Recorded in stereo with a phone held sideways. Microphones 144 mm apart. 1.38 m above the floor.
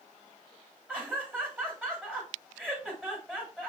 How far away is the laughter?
About 3 m.